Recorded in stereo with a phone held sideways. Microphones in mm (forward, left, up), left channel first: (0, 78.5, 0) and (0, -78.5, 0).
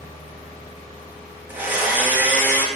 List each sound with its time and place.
1.5 s a blender: 15° right (ahead or behind), 1.6 m